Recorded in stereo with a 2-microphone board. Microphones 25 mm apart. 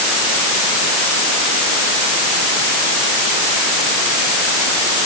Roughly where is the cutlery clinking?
No cutlery clinking in this recording.